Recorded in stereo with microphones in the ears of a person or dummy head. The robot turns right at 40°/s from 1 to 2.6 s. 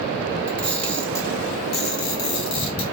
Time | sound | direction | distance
0.5 | a camera shutter | 5° left (ahead or behind) | 1.8 m